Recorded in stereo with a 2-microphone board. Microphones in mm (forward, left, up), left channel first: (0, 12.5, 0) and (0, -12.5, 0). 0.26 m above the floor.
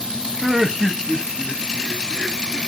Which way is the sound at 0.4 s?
10° right (ahead or behind).